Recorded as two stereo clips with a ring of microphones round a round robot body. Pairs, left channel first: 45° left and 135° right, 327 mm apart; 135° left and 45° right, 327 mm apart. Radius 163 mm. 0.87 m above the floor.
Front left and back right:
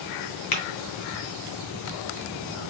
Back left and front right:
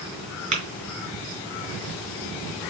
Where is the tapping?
25° left, 2 m.